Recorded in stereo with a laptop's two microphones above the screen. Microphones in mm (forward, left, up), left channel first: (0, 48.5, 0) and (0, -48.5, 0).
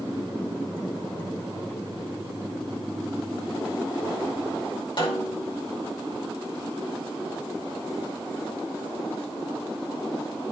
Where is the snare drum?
55° left (ahead or behind), 4 m.